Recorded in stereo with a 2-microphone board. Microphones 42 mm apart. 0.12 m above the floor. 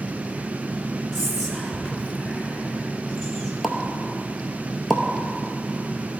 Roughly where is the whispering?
Centre.